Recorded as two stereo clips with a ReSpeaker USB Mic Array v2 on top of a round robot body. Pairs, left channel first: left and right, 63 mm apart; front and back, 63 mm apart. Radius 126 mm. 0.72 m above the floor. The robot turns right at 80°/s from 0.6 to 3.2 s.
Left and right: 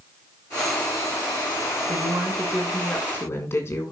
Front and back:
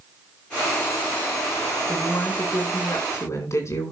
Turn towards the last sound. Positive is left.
turn(degrees=40)